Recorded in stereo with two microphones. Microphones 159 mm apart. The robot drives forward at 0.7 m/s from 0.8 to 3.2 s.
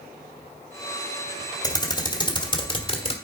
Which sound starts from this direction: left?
Typing on a keyboard, at 1.6 s.